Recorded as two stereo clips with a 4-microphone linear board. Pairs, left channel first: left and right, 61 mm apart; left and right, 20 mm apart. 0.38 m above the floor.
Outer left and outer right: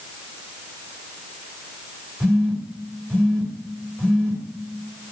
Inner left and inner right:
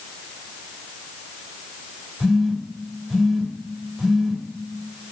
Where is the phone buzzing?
15° left (ahead or behind), 1.6 m.